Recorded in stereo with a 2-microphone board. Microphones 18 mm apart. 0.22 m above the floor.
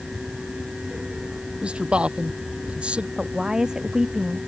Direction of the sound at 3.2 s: 30° right (ahead or behind).